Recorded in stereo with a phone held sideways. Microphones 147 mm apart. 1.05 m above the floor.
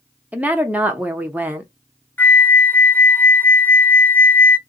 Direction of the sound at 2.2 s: 15° left (ahead or behind).